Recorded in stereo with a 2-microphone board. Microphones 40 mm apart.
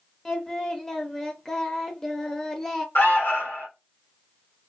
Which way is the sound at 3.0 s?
60° left (ahead or behind).